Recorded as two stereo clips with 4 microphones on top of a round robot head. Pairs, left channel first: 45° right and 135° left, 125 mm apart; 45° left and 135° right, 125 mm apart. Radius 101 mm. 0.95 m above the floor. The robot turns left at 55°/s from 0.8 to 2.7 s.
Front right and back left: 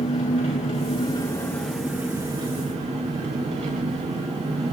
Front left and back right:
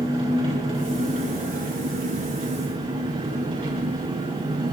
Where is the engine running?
80° right, 4.5 m; by 4.7 s 175° left, 4.5 m.